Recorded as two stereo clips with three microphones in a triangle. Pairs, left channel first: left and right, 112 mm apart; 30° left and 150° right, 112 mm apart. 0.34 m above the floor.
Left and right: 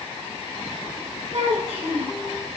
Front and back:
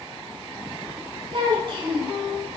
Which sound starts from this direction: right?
A child speaking, at 1.3 s.